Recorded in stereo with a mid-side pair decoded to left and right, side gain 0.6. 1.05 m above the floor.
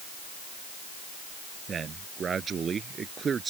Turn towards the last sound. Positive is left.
turn(degrees=-30)